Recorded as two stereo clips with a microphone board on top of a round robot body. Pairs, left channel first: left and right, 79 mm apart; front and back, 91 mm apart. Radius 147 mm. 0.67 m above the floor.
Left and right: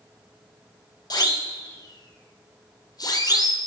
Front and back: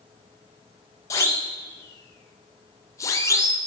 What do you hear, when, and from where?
1.1 s a siren: 55° left, 4 m